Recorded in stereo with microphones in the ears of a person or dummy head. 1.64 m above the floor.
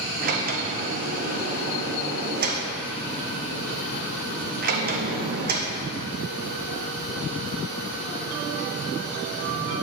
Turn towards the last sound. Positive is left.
turn(degrees=-45)  # may be behind; listen again after turning